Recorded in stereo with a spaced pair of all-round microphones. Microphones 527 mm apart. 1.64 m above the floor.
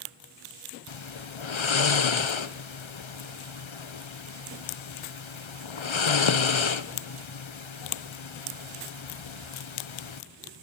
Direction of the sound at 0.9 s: 60° left (ahead or behind).